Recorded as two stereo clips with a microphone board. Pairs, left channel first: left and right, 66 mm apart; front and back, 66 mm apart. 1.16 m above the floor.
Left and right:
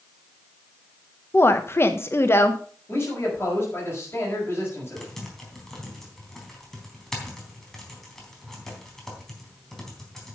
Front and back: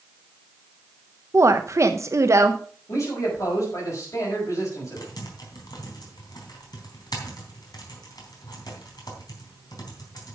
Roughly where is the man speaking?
Ahead left.